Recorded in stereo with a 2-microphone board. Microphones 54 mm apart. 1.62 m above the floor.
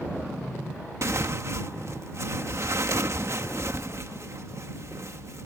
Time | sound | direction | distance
1.0 | tearing paper | 55° right (ahead or behind) | ?